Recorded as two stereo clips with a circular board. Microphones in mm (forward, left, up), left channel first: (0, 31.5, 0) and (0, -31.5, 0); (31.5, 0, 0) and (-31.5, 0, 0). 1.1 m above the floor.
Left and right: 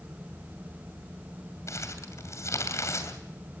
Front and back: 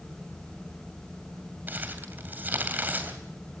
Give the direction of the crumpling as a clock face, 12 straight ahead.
8 o'clock.